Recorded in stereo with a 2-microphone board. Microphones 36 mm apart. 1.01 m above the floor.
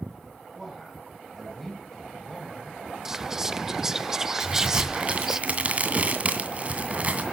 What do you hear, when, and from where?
0.6 s a man speaking: 5° right (ahead or behind), 7 m; by 2.8 s 10° left (ahead or behind), 5.5 m
3.0 s whispering: 15° right (ahead or behind), 0.5 m
4.4 s a crack: 35° right (ahead or behind), 2 m